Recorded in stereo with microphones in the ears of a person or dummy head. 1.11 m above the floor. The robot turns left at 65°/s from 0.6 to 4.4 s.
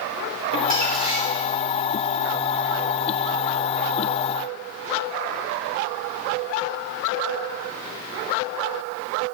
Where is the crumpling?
135° right, 3.5 m; by 1.5 s 170° left, 3.5 m.